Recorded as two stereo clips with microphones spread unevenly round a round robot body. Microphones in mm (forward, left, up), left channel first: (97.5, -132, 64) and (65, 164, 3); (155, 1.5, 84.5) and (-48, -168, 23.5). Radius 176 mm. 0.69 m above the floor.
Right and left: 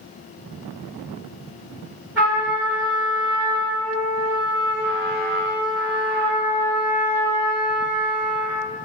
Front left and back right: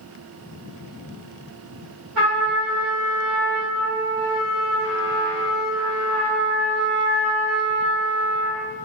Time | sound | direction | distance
2.1 | a trumpet | 175° right | 1.0 m